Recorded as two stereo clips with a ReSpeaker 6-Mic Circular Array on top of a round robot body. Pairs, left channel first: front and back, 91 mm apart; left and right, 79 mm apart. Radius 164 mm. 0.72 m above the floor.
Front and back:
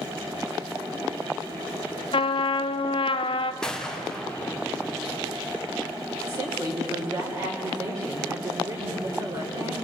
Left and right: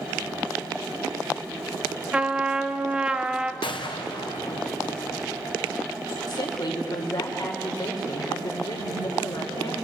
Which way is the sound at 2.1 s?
10° right.